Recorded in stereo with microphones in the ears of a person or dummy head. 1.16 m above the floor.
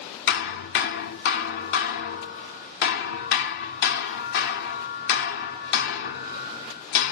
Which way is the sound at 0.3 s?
60° left (ahead or behind).